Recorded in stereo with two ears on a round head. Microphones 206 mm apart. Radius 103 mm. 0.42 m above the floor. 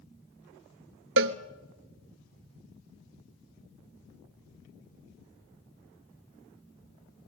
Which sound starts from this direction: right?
A cowbell, at 1.2 s.